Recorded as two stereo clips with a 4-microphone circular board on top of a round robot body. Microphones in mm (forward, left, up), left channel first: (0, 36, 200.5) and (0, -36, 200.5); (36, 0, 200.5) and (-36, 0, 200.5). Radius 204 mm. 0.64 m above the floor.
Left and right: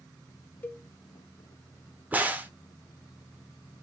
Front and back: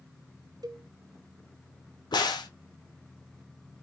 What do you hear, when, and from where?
0.6 s a cowbell: 155° left, 1.1 m
2.1 s a crack: 20° right, 0.9 m